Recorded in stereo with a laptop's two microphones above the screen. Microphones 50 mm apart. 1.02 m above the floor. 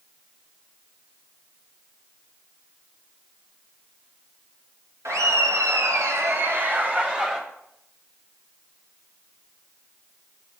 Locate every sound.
5.0 s laughter: 70° right (ahead or behind), 1.1 m; by 7.4 s 20° right (ahead or behind), 1.3 m